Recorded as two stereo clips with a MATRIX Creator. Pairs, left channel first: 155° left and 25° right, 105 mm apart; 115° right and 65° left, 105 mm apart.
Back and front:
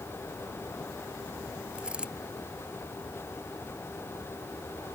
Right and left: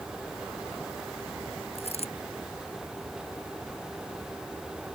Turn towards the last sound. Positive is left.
turn(degrees=-100)